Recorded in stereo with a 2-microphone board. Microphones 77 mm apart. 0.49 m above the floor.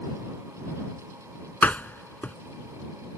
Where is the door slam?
20° left (ahead or behind).